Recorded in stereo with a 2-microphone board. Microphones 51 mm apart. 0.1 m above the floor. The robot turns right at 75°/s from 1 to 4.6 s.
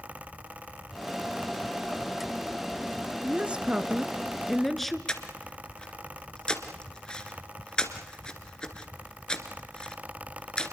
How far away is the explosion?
I don't hear an explosion.